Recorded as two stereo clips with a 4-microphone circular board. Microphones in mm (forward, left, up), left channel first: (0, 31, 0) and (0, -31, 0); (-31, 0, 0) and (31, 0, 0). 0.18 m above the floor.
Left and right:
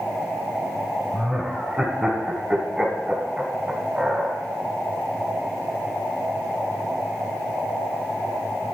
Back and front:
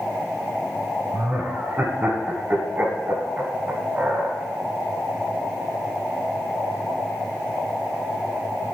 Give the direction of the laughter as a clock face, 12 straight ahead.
1 o'clock.